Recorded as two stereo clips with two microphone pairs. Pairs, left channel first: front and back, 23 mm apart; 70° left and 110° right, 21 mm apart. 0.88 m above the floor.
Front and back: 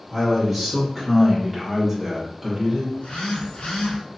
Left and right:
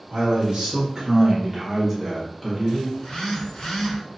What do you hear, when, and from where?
0.1 s a man speaking: 80° right, 1.4 m; by 2.8 s 90° left, 1.0 m
2.9 s a phone buzzing: 10° left, 0.9 m